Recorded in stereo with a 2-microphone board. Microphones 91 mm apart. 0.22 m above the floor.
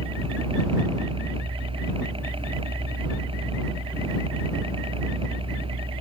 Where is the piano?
No piano in this recording.